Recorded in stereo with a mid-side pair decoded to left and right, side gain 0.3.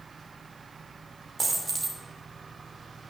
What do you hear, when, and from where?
1.4 s a dropped coin: 50° right, 2.5 m